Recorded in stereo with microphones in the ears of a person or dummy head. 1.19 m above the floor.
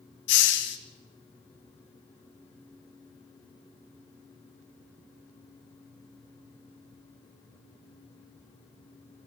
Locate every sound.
0.3 s a hiss: 65° left (ahead or behind), 1.6 m